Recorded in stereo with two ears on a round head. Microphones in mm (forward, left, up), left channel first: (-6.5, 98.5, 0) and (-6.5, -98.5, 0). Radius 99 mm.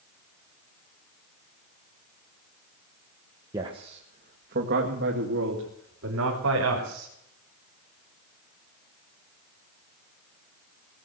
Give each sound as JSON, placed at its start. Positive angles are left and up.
{"t": 3.5, "sound": "a man speaking", "side_deg": -15, "distance_m": 1.3}